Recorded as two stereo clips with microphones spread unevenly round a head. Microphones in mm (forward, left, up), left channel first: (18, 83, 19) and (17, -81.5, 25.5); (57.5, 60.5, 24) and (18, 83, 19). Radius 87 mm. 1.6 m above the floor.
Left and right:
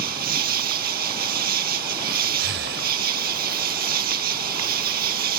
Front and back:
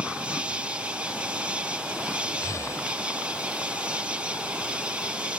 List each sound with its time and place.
0.0 s an insect: 130° right
2.4 s breathing: 75° right